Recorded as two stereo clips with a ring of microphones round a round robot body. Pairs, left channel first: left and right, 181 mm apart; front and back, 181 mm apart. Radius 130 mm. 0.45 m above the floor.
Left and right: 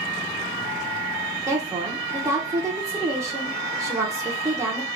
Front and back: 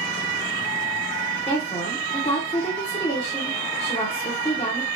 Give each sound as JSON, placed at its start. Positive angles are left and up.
{"t": 1.5, "sound": "a woman speaking", "azimuth_deg": -30, "distance_m": 1.0}